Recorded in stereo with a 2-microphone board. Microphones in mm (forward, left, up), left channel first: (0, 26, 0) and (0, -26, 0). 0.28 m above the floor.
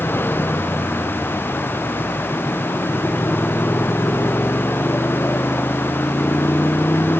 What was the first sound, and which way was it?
A motorcycle, 45° left (ahead or behind).